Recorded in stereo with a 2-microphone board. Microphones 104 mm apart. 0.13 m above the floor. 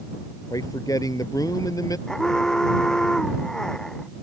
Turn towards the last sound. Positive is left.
turn(degrees=5)  # may be behind; listen again after turning